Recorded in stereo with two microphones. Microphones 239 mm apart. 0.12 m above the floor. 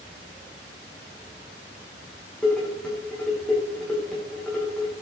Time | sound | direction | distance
2.4 | dishes clattering | 5° left (ahead or behind) | 6 m